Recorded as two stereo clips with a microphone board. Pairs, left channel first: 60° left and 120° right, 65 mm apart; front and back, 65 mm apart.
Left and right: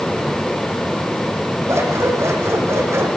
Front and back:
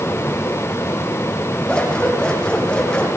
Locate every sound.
1.7 s scissors: 75° right, 8 m